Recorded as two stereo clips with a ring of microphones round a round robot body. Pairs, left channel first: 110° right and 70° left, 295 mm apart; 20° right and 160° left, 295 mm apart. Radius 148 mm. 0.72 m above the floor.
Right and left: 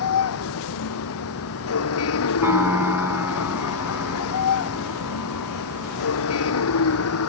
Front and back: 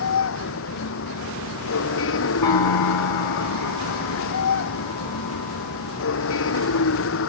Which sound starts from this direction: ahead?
A piano, at 2.4 s.